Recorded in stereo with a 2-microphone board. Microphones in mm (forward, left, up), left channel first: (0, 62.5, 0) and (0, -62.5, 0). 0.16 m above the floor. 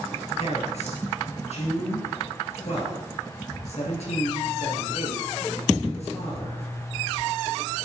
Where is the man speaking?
60° left (ahead or behind), 3.5 m.